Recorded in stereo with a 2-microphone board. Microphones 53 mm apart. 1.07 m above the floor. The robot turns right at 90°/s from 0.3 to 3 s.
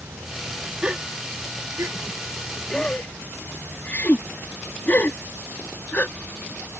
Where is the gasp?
20° right (ahead or behind); by 6.2 s 35° left (ahead or behind).